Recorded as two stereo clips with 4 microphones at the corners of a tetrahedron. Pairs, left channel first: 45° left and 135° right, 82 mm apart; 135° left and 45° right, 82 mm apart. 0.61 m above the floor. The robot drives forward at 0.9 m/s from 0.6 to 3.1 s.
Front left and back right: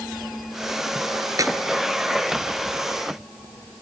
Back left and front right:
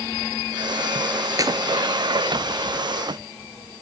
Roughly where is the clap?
Right.